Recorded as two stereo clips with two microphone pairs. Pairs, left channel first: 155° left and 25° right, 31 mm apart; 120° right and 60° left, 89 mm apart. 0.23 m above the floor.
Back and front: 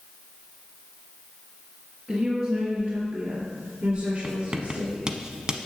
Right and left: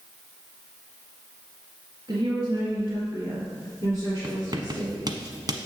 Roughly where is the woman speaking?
Ahead.